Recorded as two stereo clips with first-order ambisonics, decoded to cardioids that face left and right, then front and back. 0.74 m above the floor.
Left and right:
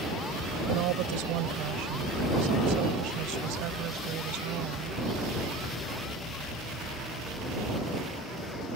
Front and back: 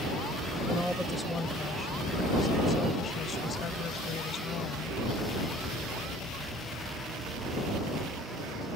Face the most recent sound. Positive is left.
turn(degrees=-50)